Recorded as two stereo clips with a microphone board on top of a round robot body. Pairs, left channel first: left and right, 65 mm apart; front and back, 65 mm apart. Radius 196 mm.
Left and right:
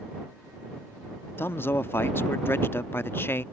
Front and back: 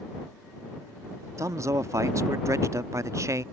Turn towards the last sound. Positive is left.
turn(degrees=145)